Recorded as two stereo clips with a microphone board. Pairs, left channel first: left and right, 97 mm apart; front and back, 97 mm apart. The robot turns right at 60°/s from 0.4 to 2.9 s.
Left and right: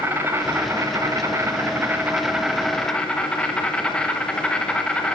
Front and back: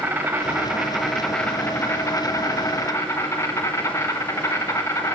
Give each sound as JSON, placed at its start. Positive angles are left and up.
{"t": 0.0, "sound": "an insect", "azimuth_deg": -130, "distance_m": 1.0}